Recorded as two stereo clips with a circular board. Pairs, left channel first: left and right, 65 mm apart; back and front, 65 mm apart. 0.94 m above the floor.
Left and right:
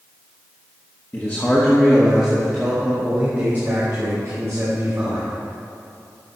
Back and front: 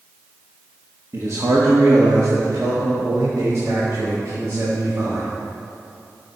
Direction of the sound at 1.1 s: 35° left.